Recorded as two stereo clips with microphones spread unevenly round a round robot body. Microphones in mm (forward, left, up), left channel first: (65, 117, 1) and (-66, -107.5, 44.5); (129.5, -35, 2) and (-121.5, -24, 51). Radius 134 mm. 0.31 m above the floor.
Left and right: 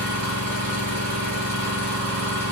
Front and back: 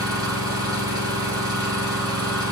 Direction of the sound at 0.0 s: 100° right.